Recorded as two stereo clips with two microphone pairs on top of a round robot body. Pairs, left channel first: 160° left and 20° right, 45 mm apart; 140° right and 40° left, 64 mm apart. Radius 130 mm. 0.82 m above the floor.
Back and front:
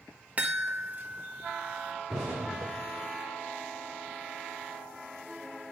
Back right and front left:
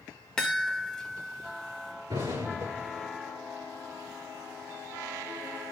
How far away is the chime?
About 1.4 m.